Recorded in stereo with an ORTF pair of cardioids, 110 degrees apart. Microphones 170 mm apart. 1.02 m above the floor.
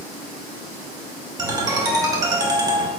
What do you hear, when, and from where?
1.4 s a ringtone: 20° right, 1.0 m